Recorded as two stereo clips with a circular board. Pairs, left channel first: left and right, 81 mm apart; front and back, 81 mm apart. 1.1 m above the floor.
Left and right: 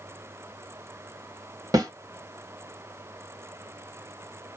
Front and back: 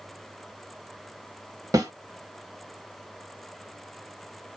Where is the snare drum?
135° right, 1.1 m.